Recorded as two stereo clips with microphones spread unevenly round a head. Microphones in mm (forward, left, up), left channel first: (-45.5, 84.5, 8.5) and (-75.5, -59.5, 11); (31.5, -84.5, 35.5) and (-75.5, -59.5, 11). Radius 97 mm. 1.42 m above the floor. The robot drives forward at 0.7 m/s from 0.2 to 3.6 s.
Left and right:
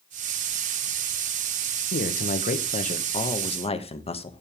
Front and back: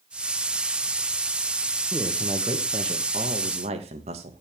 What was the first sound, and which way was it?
A man speaking, 90° left.